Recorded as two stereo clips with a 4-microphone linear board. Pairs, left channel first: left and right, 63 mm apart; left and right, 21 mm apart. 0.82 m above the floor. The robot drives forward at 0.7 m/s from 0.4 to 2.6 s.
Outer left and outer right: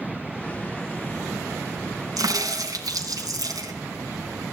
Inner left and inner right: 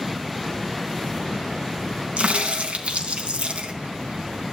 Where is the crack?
75° right (ahead or behind), 2 m; by 3.7 s 80° right, 2 m.